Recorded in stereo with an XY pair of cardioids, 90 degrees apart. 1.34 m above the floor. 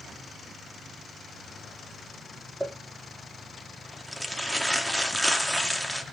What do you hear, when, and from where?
2.6 s crumpling: straight ahead, 2 m